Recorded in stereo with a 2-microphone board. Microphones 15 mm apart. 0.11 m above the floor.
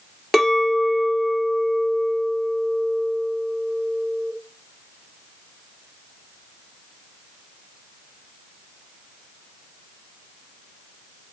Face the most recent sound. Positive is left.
turn(degrees=5)  # may be behind; listen again after turning